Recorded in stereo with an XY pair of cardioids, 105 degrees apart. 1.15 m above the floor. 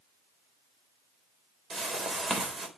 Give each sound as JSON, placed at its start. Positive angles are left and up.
{"t": 1.7, "sound": "a whoosh", "azimuth_deg": -40, "distance_m": 4.0}